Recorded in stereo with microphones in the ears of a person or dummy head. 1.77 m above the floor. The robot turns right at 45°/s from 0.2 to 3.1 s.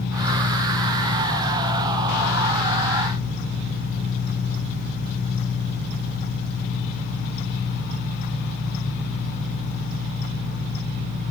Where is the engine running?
120° left, 1.6 m; by 11.3 s 110° right, 1.6 m.